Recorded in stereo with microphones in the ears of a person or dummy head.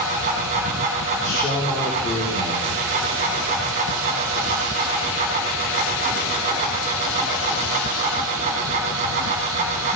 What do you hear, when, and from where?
0.0 s a fan: 35° right (ahead or behind), 1.9 m
1.2 s a man speaking: 20° left (ahead or behind), 2.5 m